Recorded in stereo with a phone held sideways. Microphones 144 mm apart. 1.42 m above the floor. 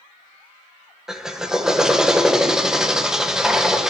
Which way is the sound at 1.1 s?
5° right (ahead or behind).